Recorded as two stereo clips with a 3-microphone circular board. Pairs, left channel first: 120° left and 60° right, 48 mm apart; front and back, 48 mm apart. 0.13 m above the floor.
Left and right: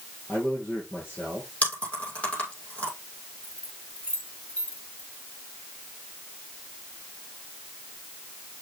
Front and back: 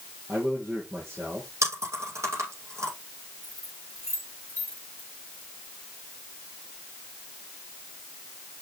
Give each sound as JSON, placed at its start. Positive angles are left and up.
{"t": 0.3, "sound": "a man speaking", "azimuth_deg": 170, "distance_m": 3.0}
{"t": 1.6, "sound": "chewing", "azimuth_deg": 180, "distance_m": 6.0}
{"t": 3.4, "sound": "keys jangling", "azimuth_deg": -170, "distance_m": 7.0}